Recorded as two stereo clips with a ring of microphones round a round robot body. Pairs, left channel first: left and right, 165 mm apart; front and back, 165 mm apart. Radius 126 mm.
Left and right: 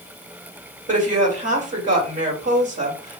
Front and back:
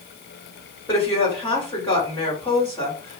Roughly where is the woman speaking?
Right.